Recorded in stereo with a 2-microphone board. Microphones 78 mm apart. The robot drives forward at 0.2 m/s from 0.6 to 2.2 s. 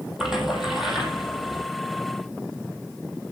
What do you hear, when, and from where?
0.2 s a splash: 5° right (ahead or behind), 4 m